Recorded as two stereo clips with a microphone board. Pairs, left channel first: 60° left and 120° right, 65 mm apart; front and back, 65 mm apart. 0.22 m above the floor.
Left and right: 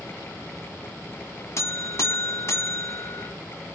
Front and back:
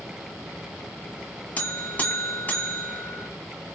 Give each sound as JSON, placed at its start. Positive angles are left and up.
{"t": 1.6, "sound": "a buzzer", "azimuth_deg": 55, "distance_m": 1.4}